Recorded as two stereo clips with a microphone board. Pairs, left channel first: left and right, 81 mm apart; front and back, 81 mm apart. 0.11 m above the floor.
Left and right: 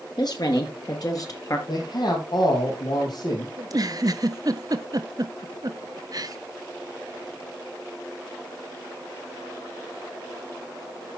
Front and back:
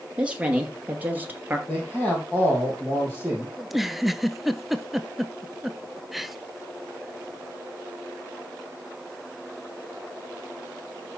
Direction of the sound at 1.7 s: 85° left.